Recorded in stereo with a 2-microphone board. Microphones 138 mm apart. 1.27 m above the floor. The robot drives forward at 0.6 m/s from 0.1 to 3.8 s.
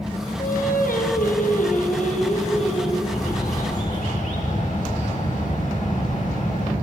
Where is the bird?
70° left (ahead or behind), 3.5 m; by 6.7 s 65° left (ahead or behind), 4 m.